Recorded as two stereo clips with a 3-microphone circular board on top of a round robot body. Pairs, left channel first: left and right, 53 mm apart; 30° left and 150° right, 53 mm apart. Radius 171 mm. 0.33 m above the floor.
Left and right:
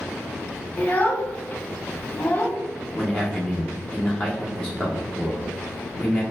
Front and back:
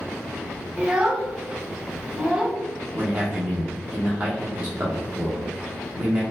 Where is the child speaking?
140° left, 0.7 m.